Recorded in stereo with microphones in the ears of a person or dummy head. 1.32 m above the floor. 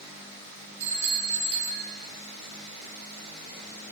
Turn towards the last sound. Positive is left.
turn(degrees=-25)  # may be behind; listen again after turning